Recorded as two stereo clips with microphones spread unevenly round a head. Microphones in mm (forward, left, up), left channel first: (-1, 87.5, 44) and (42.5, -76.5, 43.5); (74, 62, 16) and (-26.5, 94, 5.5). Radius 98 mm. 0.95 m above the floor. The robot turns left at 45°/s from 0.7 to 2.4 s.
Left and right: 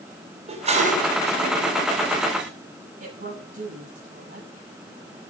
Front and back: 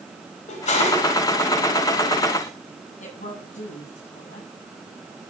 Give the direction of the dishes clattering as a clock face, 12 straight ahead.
1 o'clock.